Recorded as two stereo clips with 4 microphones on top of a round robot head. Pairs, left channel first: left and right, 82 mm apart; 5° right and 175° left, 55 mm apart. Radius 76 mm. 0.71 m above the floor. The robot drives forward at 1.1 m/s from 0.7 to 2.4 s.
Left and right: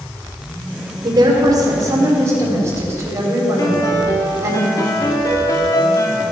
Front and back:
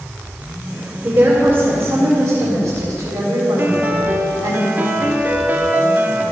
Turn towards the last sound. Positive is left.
turn(degrees=130)